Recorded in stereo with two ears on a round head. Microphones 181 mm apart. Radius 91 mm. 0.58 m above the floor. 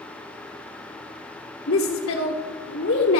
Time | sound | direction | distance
1.7 | a woman speaking | 60° left (ahead or behind) | 1.4 m